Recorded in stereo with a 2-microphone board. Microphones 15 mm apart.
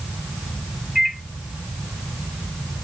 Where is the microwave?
30° right (ahead or behind), 1.3 m.